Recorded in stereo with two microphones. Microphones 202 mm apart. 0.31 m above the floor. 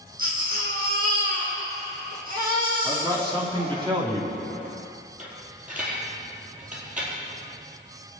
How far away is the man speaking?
About 2.5 m.